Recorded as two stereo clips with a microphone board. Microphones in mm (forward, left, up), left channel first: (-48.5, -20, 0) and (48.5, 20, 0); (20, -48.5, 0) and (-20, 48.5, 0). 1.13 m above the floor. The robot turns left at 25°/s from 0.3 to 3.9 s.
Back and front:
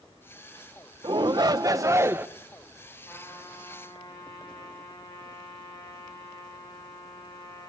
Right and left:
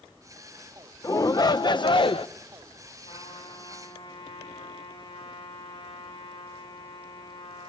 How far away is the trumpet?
About 9 m.